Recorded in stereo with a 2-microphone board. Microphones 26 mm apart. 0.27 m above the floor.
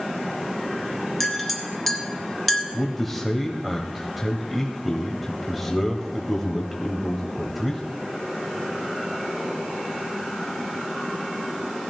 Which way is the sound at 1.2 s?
5° left (ahead or behind).